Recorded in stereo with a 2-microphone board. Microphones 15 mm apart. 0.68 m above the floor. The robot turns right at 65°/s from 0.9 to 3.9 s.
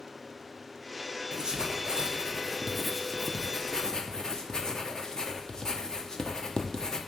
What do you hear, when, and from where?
1.3 s writing: 50° right (ahead or behind), 0.9 m; by 7.0 s 45° left (ahead or behind), 0.9 m